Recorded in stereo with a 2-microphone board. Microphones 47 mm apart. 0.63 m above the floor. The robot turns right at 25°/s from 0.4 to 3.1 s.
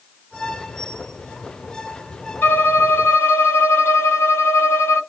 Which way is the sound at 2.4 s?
40° left (ahead or behind).